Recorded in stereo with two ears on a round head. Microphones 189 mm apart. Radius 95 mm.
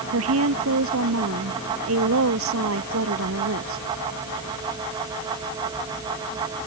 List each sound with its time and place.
0.1 s a woman speaking: 75° right (ahead or behind)